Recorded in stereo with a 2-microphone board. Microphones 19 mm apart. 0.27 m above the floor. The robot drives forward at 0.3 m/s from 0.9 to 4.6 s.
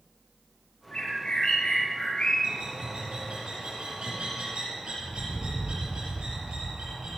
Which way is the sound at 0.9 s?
80° left.